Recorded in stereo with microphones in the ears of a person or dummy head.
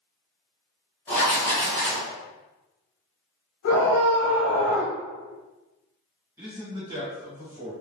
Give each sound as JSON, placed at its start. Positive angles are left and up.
{"t": 1.1, "sound": "writing", "side_deg": 10, "distance_m": 1.2}
{"t": 3.6, "sound": "a scream", "side_deg": 65, "distance_m": 1.1}
{"t": 6.4, "sound": "a man speaking", "side_deg": -15, "distance_m": 1.4}